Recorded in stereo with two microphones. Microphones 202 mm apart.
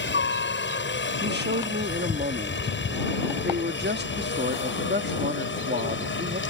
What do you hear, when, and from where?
0.0 s a helicopter: 65° left (ahead or behind); by 6.5 s 70° left (ahead or behind)
1.2 s a man speaking: 60° right (ahead or behind)